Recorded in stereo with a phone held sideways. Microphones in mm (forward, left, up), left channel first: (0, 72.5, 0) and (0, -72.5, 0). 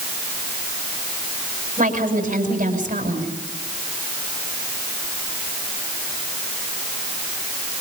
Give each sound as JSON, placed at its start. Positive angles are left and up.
{"t": 1.8, "sound": "a woman speaking", "side_deg": -60, "distance_m": 6.5}